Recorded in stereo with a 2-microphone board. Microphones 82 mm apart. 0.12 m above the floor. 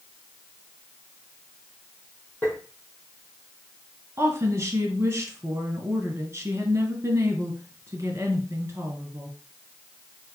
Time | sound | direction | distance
2.4 | tapping | 20° left (ahead or behind) | 2.5 m
4.2 | a woman speaking | 35° right (ahead or behind) | 1.4 m